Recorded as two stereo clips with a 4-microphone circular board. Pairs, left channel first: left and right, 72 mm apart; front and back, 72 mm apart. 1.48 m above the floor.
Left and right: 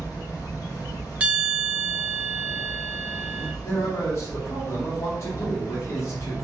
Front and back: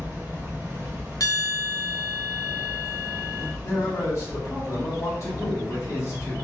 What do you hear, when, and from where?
0.0 s an insect: 115° left, 1.1 m
1.2 s a bell: 25° right, 0.6 m
3.6 s a man speaking: 45° left, 1.4 m